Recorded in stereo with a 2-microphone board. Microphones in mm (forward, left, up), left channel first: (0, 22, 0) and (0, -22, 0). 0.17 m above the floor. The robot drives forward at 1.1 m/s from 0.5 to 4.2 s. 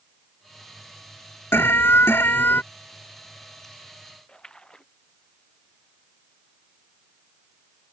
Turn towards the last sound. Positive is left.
turn(degrees=20)  # may be behind; listen again after turning